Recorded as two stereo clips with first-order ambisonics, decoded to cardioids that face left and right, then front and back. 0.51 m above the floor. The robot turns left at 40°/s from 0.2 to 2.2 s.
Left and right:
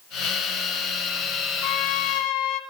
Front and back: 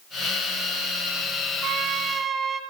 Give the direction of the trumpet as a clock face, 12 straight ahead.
8 o'clock.